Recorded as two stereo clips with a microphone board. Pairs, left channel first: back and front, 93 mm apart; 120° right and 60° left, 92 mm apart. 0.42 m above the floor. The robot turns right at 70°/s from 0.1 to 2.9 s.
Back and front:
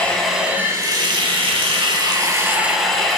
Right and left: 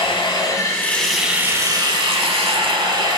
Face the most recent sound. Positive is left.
turn(degrees=95)